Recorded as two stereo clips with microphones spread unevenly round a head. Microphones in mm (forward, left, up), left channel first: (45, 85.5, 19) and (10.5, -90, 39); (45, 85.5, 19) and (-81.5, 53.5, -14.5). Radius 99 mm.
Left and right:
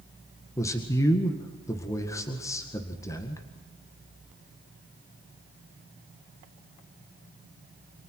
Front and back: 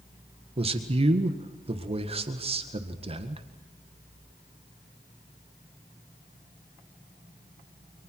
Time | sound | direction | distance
0.6 | a man speaking | 155° left | 1.8 m